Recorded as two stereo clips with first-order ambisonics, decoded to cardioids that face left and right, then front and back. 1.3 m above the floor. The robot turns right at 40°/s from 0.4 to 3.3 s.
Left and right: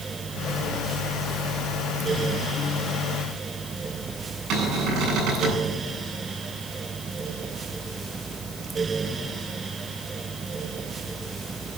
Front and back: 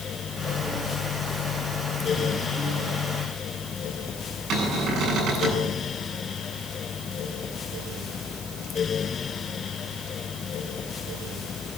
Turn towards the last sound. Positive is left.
turn(degrees=-130)